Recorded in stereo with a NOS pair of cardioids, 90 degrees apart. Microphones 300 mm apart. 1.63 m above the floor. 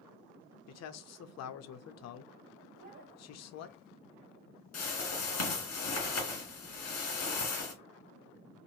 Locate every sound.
0.7 s a man speaking: 60° left, 0.6 m
2.8 s a child speaking: 30° right, 1.5 m
4.7 s a whoosh: 55° left, 1.8 m